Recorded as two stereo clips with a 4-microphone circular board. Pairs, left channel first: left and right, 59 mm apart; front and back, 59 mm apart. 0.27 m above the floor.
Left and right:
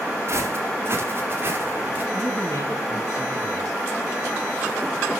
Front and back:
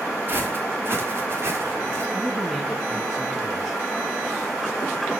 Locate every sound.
0.3 s footsteps: 130° right, 7 m; by 2.0 s 145° right, 5.5 m
2.1 s a man speaking: 95° left, 2.5 m